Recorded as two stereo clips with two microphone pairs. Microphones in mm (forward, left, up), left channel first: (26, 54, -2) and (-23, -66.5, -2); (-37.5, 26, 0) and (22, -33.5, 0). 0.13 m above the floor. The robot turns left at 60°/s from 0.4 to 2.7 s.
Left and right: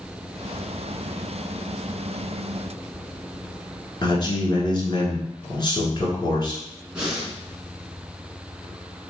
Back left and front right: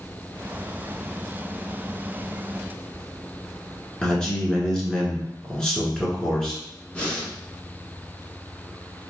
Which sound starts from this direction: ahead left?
A man speaking, at 4.0 s.